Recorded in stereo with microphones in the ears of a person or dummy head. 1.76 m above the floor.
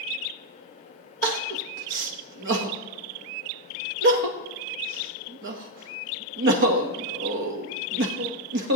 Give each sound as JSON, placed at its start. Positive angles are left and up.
{"t": 1.2, "sound": "crying", "side_deg": -65, "distance_m": 0.9}